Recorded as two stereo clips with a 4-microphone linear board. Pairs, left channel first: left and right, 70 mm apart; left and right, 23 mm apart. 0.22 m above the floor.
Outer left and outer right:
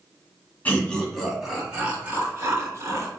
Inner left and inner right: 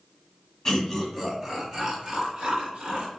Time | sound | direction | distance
0.7 | laughter | 25° left (ahead or behind) | 1.2 m